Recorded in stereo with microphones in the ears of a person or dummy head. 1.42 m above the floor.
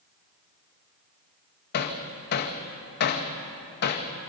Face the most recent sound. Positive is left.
turn(degrees=55)  # may be behind; listen again after turning